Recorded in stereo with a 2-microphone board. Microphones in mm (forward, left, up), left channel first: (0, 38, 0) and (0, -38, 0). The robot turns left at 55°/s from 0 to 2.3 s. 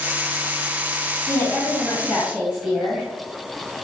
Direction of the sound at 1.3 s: 40° left.